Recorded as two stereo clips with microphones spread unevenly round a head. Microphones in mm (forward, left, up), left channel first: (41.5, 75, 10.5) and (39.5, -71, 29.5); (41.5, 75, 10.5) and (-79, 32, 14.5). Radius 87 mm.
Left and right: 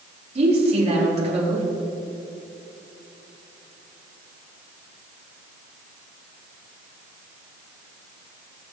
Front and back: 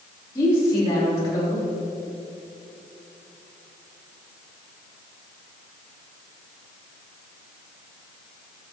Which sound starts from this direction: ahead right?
A woman speaking, at 0.3 s.